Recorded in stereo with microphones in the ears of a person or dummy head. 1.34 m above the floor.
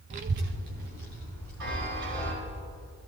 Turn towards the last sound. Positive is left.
turn(degrees=-70)  # may be behind; listen again after turning